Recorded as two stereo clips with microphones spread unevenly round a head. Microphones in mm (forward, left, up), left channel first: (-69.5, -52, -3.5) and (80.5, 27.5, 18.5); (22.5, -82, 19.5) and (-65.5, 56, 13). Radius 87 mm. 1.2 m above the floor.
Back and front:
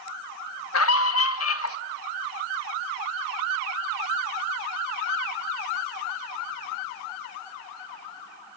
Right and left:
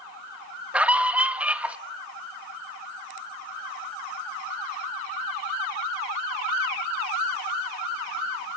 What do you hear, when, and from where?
0.7 s a scream: 155° right, 1.3 m